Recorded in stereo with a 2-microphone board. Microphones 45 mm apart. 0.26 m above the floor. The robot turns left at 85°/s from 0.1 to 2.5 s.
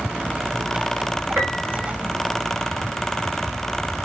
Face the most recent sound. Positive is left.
turn(degrees=145)